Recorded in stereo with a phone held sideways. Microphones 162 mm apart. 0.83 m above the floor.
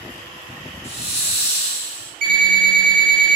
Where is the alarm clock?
50° right (ahead or behind), 1.8 m.